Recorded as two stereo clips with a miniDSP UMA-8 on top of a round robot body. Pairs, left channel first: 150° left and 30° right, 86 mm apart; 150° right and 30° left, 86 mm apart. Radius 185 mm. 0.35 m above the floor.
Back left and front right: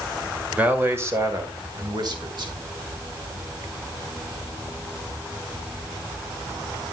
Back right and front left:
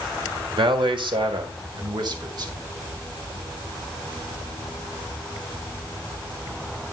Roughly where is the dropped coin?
No dropped coin in this recording.